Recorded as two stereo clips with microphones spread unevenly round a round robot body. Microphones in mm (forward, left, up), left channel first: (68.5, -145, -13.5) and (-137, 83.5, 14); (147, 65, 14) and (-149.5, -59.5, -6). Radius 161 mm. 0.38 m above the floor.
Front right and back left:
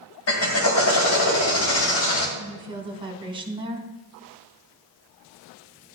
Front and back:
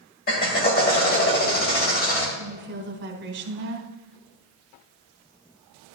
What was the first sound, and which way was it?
A drill, 35° right.